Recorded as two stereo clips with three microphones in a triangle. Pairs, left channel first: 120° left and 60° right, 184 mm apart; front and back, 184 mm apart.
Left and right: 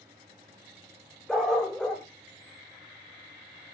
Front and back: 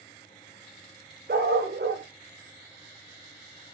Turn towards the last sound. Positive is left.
turn(degrees=-155)